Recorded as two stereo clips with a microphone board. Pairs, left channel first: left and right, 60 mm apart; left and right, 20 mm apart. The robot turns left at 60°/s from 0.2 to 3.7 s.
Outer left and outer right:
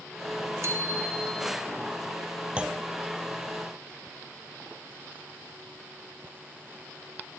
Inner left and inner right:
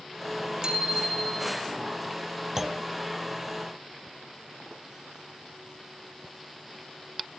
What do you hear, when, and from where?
0.6 s a bicycle bell: 130° right, 4.5 m; by 1.6 s 170° left, 4.5 m
2.6 s a clunk: 20° right (ahead or behind), 0.5 m; by 2.9 s 5° right (ahead or behind), 0.5 m